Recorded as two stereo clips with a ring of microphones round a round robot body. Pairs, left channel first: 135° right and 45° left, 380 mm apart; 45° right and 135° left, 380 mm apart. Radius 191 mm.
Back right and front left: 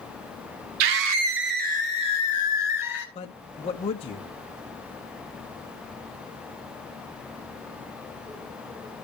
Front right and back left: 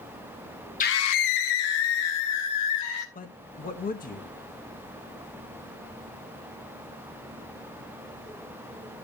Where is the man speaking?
80° right, 0.7 m.